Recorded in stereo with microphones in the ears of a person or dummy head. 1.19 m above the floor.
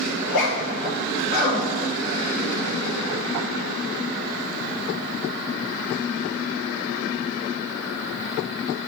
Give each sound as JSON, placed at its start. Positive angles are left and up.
{"t": 0.2, "sound": "a zipper", "side_deg": 70, "distance_m": 2.0}